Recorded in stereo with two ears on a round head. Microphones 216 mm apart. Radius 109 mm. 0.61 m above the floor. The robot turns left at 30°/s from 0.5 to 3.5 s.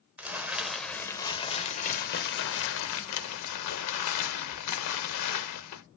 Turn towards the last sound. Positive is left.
turn(degrees=95)